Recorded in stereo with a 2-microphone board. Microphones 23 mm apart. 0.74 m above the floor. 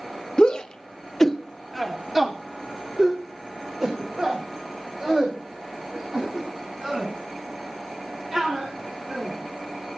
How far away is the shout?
About 1.5 m.